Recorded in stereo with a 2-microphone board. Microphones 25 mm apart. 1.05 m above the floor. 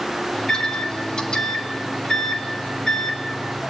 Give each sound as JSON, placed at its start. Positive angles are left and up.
{"t": 0.3, "sound": "a microwave", "side_deg": 30, "distance_m": 2.0}